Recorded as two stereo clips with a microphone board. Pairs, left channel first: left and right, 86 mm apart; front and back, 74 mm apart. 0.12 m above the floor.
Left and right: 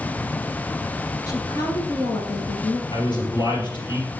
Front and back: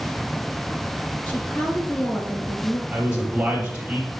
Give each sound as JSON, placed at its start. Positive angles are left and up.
{"t": 1.3, "sound": "a woman speaking", "azimuth_deg": 60, "distance_m": 1.7}
{"t": 2.9, "sound": "a man speaking", "azimuth_deg": 105, "distance_m": 3.5}